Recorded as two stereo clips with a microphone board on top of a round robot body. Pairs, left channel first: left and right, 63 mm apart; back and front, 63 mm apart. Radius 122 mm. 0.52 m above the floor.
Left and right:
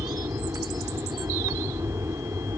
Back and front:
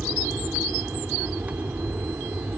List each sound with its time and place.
0.0 s an aircraft: 65° right